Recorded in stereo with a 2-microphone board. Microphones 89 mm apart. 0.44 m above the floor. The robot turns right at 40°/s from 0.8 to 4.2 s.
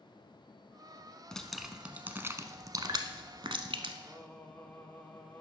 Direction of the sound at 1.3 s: 10° left (ahead or behind).